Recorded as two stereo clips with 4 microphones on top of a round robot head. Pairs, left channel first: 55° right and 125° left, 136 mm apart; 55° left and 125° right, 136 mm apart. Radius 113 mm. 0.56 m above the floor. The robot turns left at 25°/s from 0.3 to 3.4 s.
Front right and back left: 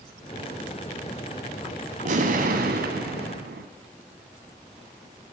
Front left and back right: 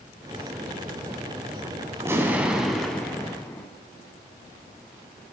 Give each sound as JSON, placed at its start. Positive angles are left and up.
{"t": 2.0, "sound": "an explosion", "azimuth_deg": 160, "distance_m": 0.7}